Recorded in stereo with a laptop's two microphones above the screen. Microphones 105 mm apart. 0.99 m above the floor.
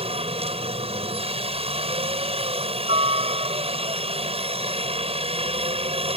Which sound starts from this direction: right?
A helicopter, at 0.0 s.